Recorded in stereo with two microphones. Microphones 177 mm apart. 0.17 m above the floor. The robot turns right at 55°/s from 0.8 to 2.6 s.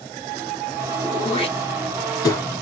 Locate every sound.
1.0 s throat clearing: 30° left (ahead or behind), 1.4 m; by 2.4 s 15° left (ahead or behind), 1.4 m